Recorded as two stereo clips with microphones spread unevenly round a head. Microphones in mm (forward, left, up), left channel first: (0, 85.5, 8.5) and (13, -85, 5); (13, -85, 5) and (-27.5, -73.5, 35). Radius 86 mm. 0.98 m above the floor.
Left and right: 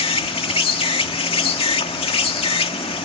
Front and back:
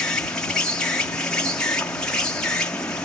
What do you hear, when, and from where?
0.0 s an insect: 35° left